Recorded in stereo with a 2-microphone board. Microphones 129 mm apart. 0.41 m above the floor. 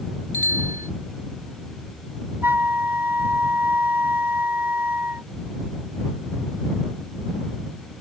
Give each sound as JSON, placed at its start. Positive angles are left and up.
{"t": 0.3, "sound": "a bicycle bell", "side_deg": 80}
{"t": 2.4, "sound": "a flute", "side_deg": -15}